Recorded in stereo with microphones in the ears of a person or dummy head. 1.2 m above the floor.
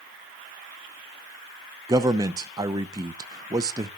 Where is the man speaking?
20° right (ahead or behind), 0.6 m.